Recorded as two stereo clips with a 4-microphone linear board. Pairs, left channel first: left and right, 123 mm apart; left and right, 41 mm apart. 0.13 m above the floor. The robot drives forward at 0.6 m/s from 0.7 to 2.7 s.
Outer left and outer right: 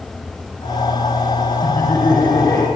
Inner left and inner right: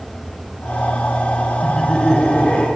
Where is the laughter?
20° left (ahead or behind), 1.3 m; by 2.7 s 15° left (ahead or behind), 1.6 m.